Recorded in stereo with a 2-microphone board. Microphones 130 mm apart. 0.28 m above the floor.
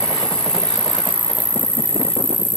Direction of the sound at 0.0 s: 45° right (ahead or behind).